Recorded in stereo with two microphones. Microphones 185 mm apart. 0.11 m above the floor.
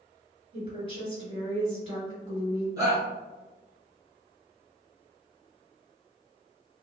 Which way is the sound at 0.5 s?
35° right (ahead or behind).